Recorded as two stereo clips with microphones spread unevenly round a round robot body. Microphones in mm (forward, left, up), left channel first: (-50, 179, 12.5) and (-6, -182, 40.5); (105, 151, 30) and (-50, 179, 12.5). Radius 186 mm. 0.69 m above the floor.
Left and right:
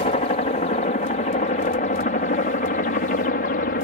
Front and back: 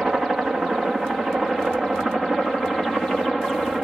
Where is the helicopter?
95° left; by 3.9 s 80° left.